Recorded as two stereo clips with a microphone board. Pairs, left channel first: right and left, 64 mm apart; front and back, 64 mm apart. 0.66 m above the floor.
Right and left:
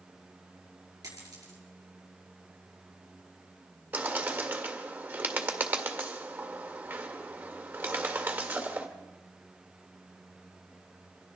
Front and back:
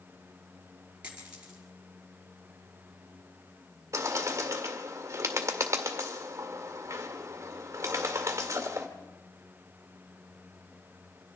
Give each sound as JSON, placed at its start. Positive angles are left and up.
{"t": 1.0, "sound": "a dropped coin", "azimuth_deg": 105, "distance_m": 5.0}
{"t": 3.9, "sound": "a bird", "azimuth_deg": 145, "distance_m": 1.9}